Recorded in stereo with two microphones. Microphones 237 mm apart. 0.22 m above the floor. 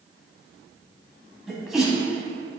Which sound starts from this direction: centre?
A sneeze, at 1.5 s.